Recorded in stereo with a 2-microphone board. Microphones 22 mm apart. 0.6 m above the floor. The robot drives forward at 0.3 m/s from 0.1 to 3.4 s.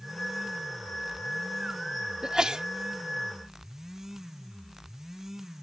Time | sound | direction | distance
2.2 | a sneeze | 35° right (ahead or behind) | ?